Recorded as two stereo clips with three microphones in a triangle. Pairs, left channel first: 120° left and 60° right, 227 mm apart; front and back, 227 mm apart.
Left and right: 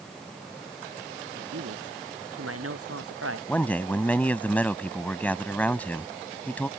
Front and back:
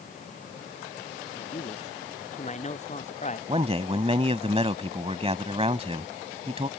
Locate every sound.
1.4 s a man speaking: 60° right
3.5 s a man speaking: 165° right